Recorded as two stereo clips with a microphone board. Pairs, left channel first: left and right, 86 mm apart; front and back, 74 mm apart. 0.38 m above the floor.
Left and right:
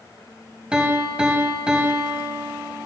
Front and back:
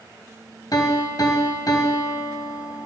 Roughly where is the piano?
Ahead.